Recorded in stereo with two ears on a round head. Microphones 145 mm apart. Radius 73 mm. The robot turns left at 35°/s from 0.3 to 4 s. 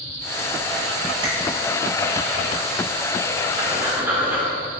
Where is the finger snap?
25° right (ahead or behind), 1.5 m; by 1.3 s 30° right (ahead or behind), 1.5 m.